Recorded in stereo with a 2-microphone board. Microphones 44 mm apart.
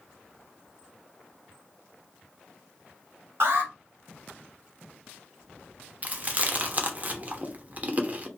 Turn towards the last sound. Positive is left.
turn(degrees=-35)  # may be behind; listen again after turning